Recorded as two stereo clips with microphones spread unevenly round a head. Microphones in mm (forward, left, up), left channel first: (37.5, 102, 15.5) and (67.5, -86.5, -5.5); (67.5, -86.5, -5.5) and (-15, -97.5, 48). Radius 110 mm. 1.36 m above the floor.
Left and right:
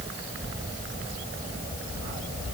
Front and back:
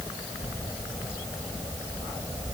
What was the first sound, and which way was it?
Only background noise.